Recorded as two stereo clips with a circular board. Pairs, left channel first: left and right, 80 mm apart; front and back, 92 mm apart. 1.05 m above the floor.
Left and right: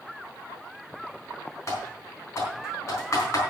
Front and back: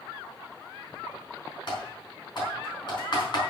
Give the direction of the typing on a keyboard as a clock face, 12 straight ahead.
11 o'clock.